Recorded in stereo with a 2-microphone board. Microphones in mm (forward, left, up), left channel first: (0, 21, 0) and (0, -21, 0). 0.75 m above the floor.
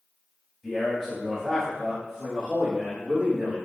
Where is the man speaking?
10° left (ahead or behind), 1.4 m; by 3.5 s 15° right (ahead or behind), 1.6 m.